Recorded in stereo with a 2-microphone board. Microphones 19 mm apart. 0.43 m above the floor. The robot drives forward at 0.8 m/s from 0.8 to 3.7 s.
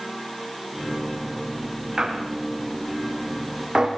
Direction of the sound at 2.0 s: 40° right (ahead or behind).